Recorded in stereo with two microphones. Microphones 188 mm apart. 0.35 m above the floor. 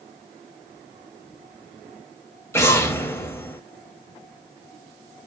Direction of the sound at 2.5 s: 10° left (ahead or behind).